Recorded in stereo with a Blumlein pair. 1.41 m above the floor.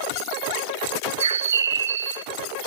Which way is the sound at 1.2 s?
65° right.